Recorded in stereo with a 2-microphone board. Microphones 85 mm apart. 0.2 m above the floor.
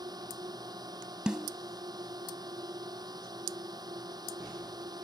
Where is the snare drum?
10° right (ahead or behind).